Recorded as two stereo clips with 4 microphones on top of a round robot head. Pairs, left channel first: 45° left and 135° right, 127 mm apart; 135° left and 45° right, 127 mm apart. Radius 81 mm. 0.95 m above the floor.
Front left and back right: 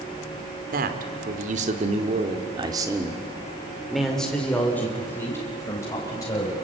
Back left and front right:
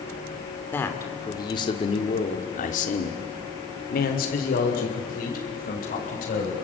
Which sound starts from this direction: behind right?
A man speaking, at 0.7 s.